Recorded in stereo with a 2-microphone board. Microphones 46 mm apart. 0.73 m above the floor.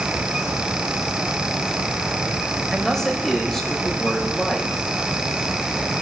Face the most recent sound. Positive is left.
turn(degrees=10)  # may be behind; listen again after turning